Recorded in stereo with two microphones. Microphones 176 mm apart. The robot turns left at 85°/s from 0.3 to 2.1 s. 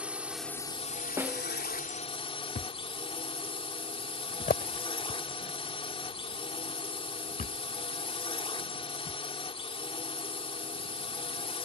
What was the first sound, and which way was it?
A drone, 175° right.